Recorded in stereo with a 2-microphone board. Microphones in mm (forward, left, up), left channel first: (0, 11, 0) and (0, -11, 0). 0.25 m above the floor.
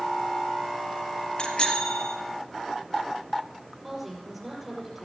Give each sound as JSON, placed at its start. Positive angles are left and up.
{"t": 1.4, "sound": "a bicycle bell", "side_deg": 55, "distance_m": 4.0}
{"t": 3.8, "sound": "a woman speaking", "side_deg": -5, "distance_m": 6.0}